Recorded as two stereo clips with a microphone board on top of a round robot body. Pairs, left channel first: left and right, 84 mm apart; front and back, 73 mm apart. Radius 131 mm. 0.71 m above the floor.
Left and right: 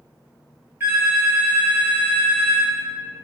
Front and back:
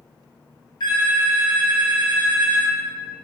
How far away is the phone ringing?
About 1.1 m.